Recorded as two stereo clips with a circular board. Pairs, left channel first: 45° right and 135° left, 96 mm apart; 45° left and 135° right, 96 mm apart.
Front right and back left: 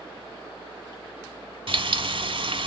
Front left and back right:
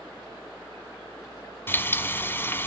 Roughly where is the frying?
Left.